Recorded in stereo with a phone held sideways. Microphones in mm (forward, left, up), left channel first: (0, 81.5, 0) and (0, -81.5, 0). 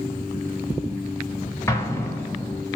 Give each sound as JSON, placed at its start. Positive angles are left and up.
{"t": 1.7, "sound": "an explosion", "side_deg": 15, "distance_m": 0.6}